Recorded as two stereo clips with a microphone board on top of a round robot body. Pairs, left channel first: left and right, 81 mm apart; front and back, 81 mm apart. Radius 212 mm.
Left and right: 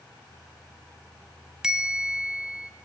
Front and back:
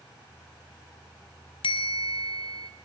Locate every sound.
1.6 s a bell: 5° right, 0.8 m